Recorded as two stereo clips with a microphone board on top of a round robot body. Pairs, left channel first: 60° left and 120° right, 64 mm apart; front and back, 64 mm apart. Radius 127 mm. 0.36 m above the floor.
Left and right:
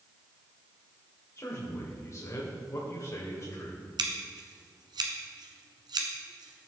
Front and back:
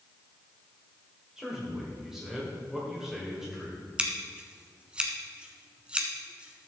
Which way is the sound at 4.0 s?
105° right.